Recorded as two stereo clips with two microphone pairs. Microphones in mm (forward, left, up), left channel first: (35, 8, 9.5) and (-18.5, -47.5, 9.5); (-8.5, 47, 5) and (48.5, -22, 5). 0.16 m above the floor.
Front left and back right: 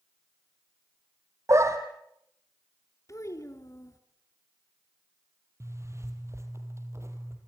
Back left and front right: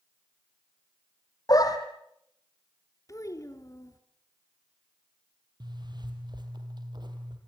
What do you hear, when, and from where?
1.5 s a dog barking: 175° left, 2.5 m
3.1 s a child speaking: 85° left, 2 m
5.6 s a zipper: 85° right, 3.5 m